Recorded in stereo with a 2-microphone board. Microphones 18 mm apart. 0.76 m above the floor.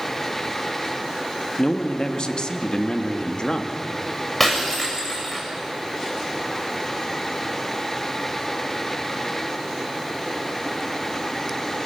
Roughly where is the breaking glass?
Centre.